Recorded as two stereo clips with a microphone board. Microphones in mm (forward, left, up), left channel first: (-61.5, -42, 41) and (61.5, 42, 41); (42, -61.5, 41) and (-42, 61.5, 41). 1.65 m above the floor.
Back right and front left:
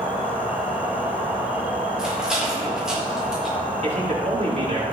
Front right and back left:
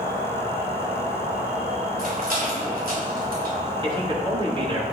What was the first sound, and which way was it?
An insect, 115° left.